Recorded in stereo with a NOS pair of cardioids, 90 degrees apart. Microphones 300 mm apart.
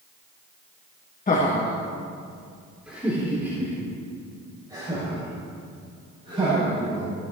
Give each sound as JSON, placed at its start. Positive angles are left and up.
{"t": 1.3, "sound": "laughter", "azimuth_deg": 30, "distance_m": 1.4}